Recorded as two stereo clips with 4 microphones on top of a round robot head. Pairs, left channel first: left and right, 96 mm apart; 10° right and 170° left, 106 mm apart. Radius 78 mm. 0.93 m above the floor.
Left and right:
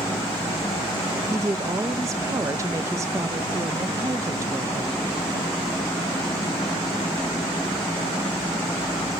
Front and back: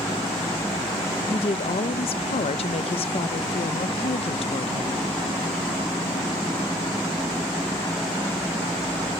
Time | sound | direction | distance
1.3 | a woman speaking | 30° right | 0.5 m